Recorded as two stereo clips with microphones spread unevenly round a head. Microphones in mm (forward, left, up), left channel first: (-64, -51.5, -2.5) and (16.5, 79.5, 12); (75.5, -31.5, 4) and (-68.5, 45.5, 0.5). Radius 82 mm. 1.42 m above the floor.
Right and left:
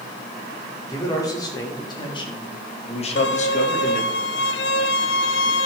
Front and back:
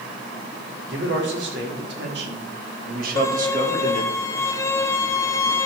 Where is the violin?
100° right, 0.7 m.